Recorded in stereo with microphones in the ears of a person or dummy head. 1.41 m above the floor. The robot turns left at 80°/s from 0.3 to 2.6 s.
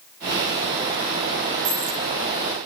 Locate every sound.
1.6 s a dropped coin: 70° right (ahead or behind), 5.5 m; by 2.0 s 50° right (ahead or behind), 5.5 m